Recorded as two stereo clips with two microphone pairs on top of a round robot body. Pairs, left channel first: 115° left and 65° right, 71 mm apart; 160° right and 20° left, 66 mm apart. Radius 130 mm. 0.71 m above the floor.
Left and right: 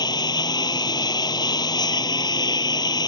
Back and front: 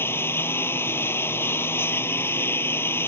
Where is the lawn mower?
140° left.